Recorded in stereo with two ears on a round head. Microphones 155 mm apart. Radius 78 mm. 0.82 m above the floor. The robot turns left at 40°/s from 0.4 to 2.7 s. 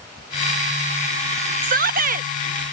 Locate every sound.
1.6 s a shout: 50° right (ahead or behind)